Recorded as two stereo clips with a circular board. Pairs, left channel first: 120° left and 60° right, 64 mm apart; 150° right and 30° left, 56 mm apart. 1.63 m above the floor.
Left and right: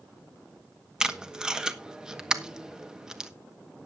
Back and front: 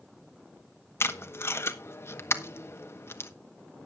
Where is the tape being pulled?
135° right, 1.0 m.